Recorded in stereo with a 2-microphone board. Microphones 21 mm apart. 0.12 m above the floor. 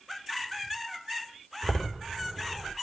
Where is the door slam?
25° left (ahead or behind), 5.5 m.